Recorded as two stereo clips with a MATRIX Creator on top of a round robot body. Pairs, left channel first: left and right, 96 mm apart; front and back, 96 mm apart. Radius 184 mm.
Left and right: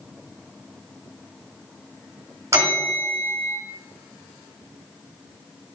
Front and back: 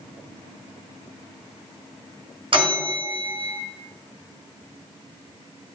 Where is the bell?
150° right, 2 m.